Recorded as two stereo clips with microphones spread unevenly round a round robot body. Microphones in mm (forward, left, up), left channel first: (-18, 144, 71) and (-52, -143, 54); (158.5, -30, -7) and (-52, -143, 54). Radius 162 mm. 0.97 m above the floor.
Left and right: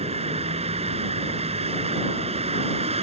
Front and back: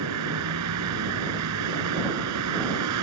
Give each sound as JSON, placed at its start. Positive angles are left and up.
{"t": 0.0, "sound": "a vehicle", "azimuth_deg": -165}